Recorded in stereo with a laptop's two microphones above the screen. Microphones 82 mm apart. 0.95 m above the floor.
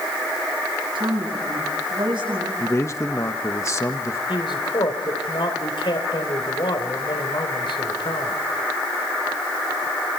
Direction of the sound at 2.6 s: 35° left (ahead or behind).